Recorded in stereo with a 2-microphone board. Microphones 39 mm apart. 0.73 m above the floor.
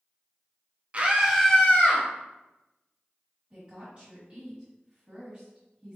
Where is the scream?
35° right (ahead or behind), 0.8 m; by 2.0 s 50° left (ahead or behind), 0.9 m.